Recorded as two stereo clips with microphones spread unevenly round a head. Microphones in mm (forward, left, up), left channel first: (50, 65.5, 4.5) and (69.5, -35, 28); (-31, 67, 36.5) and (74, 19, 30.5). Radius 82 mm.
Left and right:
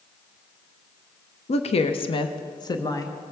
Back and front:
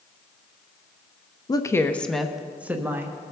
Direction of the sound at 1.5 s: 100° left.